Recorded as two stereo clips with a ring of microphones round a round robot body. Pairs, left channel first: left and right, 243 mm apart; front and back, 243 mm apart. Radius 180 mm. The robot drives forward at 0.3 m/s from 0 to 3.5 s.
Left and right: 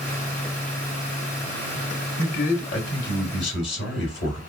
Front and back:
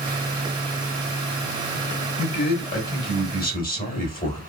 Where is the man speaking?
45° left, 2.5 m; by 4.4 s 50° left, 2 m.